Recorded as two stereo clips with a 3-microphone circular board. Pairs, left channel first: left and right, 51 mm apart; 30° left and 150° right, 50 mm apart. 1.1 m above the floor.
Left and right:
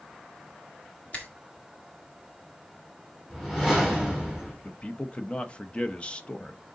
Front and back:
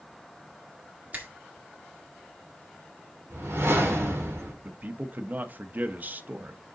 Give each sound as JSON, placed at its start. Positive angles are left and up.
{"t": 1.1, "sound": "a finger snap", "azimuth_deg": 150, "distance_m": 1.7}
{"t": 3.3, "sound": "a whoosh", "azimuth_deg": 175, "distance_m": 4.5}
{"t": 4.6, "sound": "a man speaking", "azimuth_deg": 160, "distance_m": 0.8}